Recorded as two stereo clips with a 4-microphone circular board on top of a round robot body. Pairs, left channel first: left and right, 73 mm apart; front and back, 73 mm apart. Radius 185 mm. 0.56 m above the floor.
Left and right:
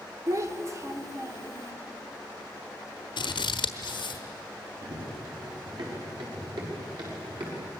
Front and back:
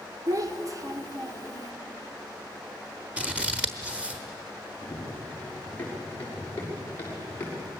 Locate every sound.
0.3 s a child speaking: 140° right, 2.0 m
3.2 s scissors: 105° left, 1.2 m
4.8 s running footsteps: 70° right, 6 m; by 7.7 s 60° right, 7.5 m